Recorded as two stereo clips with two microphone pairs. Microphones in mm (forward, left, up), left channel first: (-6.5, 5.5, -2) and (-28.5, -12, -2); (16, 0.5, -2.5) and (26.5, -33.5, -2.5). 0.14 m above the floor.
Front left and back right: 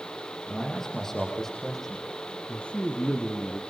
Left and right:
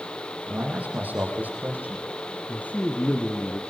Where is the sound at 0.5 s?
30° right, 5 m; by 2.1 s 40° right, 6.5 m.